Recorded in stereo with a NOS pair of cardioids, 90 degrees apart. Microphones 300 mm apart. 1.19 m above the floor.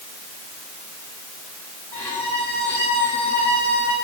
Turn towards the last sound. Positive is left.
turn(degrees=5)